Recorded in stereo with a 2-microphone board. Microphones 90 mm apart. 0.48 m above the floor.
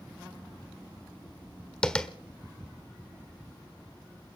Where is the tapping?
10° left (ahead or behind), 1.4 m.